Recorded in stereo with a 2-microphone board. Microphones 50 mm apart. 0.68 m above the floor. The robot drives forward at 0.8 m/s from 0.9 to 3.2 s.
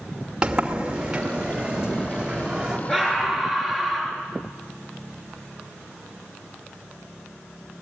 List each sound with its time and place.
0.4 s a sliding door: 20° right (ahead or behind), 2.5 m; by 2.8 s 15° right (ahead or behind), 4 m
2.9 s a scream: 5° left (ahead or behind), 8.5 m